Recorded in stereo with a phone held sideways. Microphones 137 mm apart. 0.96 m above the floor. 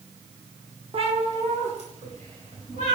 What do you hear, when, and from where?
0.9 s a cat meowing: 45° right (ahead or behind), 1.0 m; by 2.9 s 60° right (ahead or behind), 3.5 m